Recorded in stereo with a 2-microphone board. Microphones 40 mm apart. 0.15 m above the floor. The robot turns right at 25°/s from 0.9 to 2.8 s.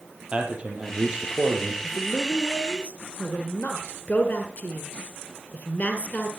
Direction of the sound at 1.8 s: 60° left (ahead or behind).